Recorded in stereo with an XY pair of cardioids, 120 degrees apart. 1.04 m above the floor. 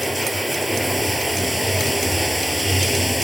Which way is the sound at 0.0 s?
5° right.